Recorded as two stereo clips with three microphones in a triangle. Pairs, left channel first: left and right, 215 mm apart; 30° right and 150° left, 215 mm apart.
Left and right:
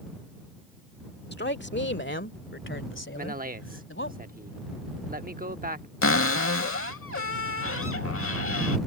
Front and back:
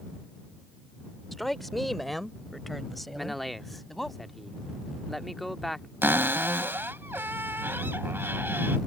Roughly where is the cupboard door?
Left.